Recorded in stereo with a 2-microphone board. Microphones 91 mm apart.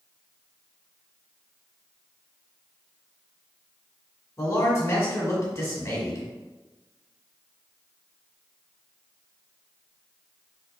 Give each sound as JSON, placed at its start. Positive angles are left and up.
{"t": 4.4, "sound": "a man speaking", "side_deg": 35, "distance_m": 1.5}